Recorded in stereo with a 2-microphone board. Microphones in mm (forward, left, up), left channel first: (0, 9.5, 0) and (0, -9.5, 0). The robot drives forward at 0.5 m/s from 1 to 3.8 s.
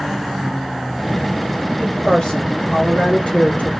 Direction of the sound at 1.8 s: 45° left (ahead or behind).